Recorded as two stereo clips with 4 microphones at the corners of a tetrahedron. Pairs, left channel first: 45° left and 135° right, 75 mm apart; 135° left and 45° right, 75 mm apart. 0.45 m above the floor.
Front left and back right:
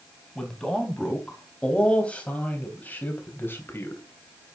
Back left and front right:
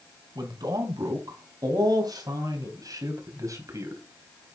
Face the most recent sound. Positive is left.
turn(degrees=-5)